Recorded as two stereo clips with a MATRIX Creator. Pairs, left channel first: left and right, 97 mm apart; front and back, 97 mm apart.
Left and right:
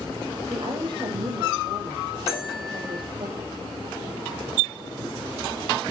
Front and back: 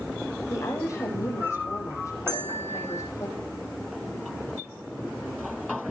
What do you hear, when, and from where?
0.5 s a woman speaking: 55° right, 6 m
2.3 s a bell: 175° right, 4 m